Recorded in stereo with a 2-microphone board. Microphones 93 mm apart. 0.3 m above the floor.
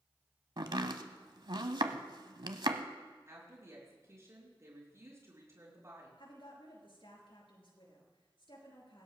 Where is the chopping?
60° right (ahead or behind), 1.0 m.